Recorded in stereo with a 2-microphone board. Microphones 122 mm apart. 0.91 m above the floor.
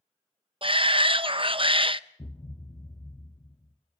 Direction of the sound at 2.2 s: 30° left (ahead or behind).